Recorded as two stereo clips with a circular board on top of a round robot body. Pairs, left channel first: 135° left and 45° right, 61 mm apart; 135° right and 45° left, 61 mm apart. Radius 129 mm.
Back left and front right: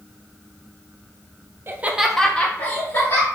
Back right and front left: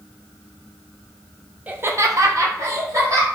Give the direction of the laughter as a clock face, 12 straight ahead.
12 o'clock.